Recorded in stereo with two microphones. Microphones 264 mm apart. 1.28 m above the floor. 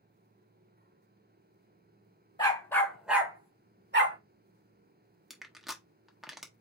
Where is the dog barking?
15° left (ahead or behind), 1.8 m; by 4.2 s 50° right (ahead or behind), 1.4 m.